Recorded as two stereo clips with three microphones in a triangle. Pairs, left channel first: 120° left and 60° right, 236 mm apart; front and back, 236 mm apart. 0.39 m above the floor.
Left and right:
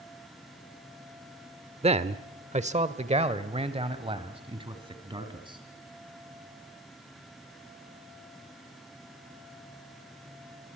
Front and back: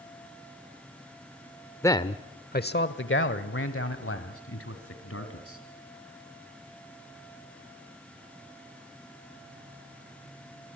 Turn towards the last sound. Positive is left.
turn(degrees=10)